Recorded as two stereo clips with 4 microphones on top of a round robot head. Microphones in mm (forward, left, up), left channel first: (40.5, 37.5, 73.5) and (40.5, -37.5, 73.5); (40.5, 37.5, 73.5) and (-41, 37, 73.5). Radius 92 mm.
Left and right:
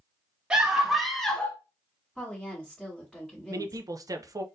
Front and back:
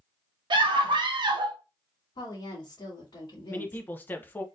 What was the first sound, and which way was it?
A scream, 165° right.